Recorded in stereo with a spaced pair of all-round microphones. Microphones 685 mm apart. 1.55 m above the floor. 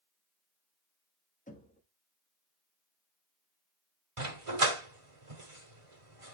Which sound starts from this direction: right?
A dog barking, at 4.2 s.